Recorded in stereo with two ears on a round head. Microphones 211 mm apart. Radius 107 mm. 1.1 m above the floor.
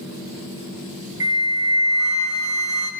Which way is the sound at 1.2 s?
15° right (ahead or behind).